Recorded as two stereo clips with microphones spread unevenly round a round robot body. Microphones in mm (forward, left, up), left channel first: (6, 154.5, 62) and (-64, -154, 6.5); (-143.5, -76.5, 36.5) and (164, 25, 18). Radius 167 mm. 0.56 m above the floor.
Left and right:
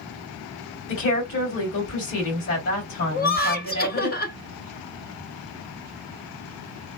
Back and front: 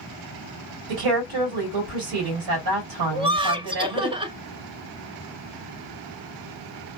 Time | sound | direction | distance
0.9 | a woman speaking | 20° left | 2.5 m
3.1 | laughter | 45° left | 0.6 m